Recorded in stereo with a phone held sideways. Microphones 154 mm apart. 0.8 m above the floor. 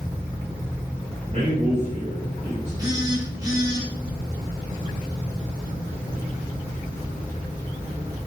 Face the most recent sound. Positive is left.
turn(degrees=-25)  # may be behind; listen again after turning